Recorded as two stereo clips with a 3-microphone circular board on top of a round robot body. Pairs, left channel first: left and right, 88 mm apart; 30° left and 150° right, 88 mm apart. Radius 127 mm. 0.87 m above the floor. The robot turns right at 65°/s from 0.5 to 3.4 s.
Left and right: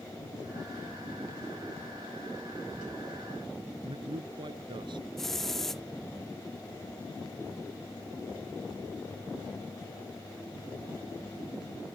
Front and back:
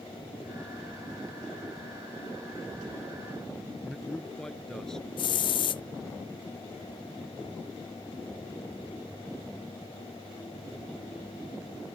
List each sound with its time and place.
3.8 s a man speaking: 55° right
5.2 s a hiss: 5° left